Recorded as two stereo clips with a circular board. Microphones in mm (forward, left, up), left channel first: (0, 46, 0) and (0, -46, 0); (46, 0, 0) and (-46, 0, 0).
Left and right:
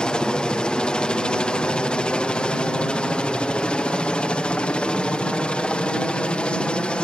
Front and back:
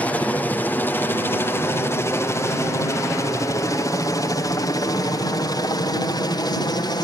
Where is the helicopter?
30° left; by 7.0 s 15° left.